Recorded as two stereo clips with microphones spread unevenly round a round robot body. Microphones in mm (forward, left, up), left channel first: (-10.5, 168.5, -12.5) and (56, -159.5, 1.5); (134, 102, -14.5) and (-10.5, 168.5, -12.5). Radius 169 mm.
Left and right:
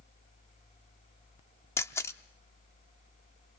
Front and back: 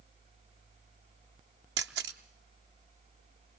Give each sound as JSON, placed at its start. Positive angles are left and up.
{"t": 1.8, "sound": "a camera shutter", "azimuth_deg": -175, "distance_m": 0.6}